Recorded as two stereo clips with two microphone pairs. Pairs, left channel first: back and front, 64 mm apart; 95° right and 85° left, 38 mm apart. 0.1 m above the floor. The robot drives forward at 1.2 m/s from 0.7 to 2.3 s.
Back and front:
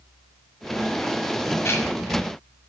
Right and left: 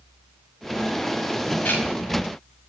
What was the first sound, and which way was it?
Ticking, 130° right.